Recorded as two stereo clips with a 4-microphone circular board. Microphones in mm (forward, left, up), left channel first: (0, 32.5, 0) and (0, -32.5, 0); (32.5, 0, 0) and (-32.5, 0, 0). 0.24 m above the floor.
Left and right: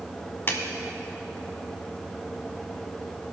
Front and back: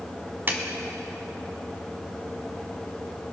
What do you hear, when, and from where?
0.5 s a clap: 135° left, 1.2 m